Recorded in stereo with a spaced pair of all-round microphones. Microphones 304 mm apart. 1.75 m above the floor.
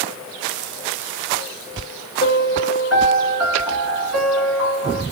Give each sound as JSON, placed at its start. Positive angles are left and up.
{"t": 2.2, "sound": "a piano", "side_deg": 45, "distance_m": 3.0}